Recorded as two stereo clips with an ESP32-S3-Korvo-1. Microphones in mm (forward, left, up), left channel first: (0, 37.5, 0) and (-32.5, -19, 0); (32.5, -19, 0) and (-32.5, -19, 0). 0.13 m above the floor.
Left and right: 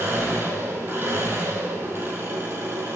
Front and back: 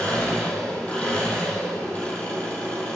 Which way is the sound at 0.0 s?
70° right.